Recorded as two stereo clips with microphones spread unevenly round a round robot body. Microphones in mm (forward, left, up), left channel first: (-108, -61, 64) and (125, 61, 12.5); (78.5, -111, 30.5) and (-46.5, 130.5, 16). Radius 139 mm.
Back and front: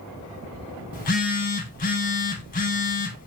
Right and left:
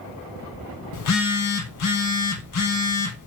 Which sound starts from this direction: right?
A phone buzzing, at 0.9 s.